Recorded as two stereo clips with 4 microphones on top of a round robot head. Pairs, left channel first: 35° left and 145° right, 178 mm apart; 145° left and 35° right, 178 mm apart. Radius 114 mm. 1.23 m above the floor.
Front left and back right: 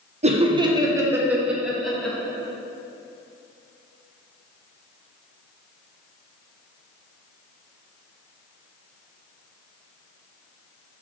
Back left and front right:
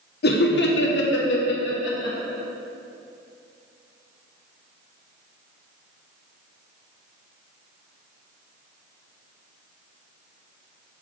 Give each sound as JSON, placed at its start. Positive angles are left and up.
{"t": 0.2, "sound": "laughter", "azimuth_deg": 165, "distance_m": 1.0}